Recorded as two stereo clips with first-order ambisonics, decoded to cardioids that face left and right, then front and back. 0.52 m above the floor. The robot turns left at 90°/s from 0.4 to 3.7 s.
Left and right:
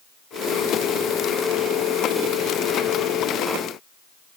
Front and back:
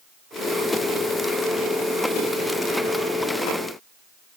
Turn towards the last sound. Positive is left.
No sound to turn to.